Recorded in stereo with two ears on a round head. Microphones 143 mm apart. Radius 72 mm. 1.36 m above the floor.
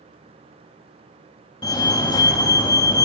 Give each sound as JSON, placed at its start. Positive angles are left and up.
{"t": 1.6, "sound": "a fire alarm", "side_deg": 25, "distance_m": 3.5}